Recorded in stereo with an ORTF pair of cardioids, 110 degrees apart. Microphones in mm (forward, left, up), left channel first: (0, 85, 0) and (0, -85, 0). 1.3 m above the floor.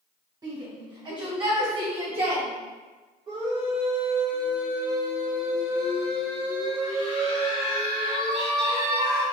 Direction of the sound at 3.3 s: 35° right.